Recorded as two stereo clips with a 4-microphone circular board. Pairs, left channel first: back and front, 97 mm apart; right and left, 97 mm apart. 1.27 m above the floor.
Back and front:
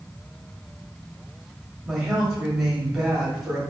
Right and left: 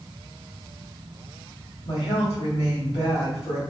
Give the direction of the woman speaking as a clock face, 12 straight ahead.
3 o'clock.